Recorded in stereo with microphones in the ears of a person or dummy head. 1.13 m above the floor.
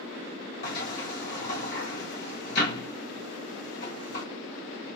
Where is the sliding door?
50° left (ahead or behind), 1.9 m.